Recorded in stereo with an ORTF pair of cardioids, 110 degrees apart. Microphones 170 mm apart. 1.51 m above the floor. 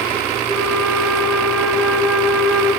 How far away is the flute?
About 1.1 m.